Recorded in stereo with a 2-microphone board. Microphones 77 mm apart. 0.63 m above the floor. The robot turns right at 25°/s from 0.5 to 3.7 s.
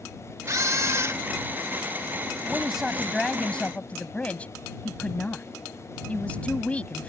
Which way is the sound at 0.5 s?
50° right (ahead or behind).